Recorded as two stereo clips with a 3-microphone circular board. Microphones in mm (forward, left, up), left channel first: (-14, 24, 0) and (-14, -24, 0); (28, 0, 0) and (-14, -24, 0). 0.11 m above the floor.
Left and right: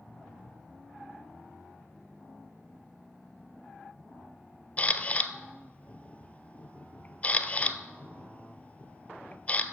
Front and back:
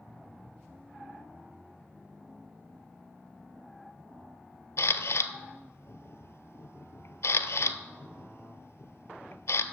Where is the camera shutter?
35° left, 0.5 m.